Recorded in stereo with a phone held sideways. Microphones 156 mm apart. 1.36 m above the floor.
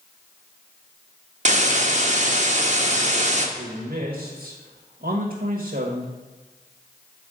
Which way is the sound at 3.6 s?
70° right (ahead or behind).